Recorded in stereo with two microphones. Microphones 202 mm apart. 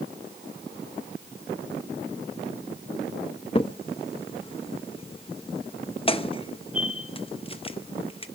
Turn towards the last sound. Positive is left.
turn(degrees=30)  # may be behind; listen again after turning